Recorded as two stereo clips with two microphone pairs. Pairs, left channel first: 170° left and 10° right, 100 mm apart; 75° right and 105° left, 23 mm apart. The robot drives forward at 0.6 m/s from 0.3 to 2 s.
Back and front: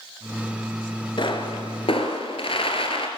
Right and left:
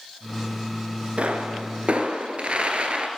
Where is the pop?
130° left, 1.5 m; by 3.1 s 140° left, 1.9 m.